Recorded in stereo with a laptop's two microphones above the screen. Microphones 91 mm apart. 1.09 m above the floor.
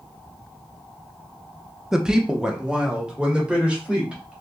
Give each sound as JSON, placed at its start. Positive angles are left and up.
{"t": 1.9, "sound": "a woman speaking", "side_deg": -5, "distance_m": 0.6}